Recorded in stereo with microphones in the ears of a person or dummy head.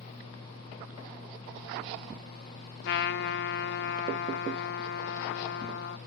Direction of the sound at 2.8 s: 65° left (ahead or behind).